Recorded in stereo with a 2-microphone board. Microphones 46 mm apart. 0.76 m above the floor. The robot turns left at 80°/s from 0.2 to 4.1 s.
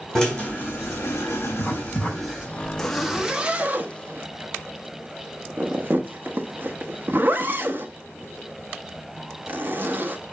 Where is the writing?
55° left (ahead or behind), 5.5 m; by 3.3 s 80° right, 5.5 m.